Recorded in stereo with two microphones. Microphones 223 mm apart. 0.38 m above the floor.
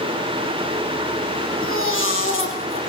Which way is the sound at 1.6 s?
65° left (ahead or behind).